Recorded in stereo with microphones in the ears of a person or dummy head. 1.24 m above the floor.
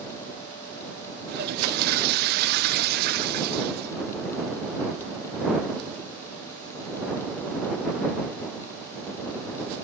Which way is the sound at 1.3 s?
50° right (ahead or behind).